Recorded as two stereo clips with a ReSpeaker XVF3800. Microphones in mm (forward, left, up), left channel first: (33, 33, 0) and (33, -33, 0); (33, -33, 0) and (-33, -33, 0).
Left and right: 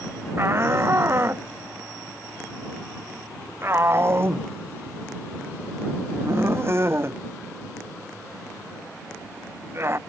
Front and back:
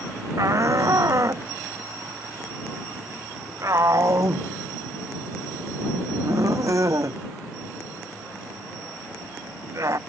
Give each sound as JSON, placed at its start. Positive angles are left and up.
{"t": 0.4, "sound": "a shout", "azimuth_deg": -140}